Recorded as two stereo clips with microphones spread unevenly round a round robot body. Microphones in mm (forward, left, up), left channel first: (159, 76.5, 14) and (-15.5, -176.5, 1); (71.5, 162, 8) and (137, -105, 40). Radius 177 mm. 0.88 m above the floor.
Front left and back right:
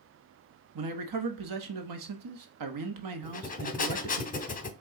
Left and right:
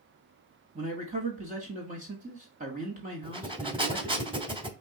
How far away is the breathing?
About 1.0 m.